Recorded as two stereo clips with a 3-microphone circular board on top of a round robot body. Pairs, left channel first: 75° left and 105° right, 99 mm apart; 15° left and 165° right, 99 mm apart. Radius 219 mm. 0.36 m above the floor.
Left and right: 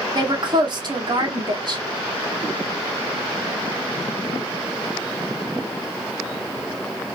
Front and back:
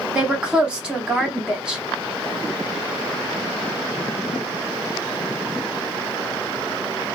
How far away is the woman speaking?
About 1.4 m.